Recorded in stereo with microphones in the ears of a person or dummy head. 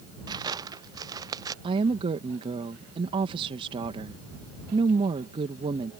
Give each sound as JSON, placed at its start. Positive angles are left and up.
{"t": 0.3, "sound": "footsteps", "side_deg": -15}
{"t": 1.6, "sound": "a woman speaking", "side_deg": -30}